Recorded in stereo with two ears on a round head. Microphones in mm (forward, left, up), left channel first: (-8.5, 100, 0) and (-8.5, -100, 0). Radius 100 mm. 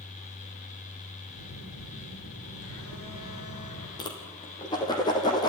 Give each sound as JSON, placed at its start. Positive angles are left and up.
{"t": 1.4, "sound": "a phone buzzing", "side_deg": 70, "distance_m": 8.5}
{"t": 4.0, "sound": "a whoosh", "side_deg": 20, "distance_m": 5.0}